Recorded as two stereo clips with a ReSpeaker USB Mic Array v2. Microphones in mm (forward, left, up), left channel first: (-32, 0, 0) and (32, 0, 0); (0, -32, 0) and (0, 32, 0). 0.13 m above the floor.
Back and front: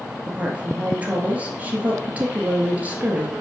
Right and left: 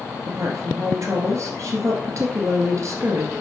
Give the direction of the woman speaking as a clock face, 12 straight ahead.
10 o'clock.